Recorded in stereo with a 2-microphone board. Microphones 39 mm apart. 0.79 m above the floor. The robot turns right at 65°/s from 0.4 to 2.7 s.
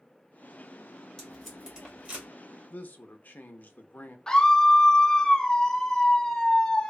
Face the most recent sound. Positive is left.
turn(degrees=15)  # may be behind; listen again after turning